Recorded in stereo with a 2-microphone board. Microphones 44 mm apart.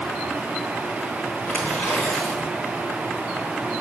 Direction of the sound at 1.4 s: 30° left (ahead or behind).